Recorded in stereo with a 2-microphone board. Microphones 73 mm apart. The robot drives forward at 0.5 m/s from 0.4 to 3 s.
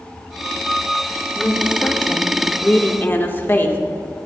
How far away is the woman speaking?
About 2 m.